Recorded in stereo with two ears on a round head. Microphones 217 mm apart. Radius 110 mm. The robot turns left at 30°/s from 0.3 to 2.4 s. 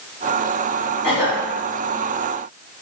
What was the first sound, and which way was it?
A cough, 5° right (ahead or behind).